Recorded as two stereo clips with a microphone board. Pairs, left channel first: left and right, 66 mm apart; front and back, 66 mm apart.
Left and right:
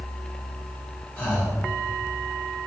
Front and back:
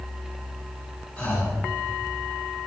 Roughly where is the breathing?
Ahead left.